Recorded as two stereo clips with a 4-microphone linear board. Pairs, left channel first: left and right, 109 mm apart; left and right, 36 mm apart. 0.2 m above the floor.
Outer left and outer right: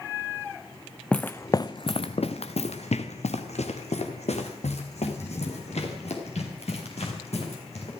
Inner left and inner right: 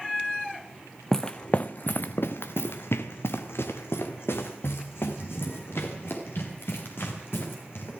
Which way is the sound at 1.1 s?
10° left (ahead or behind).